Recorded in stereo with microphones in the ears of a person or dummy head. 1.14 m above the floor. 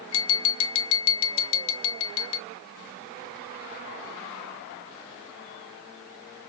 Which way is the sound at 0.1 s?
75° left (ahead or behind).